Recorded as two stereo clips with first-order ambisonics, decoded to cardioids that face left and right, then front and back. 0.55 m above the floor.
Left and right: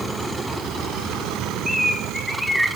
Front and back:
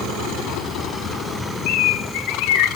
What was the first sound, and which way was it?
A bird, straight ahead.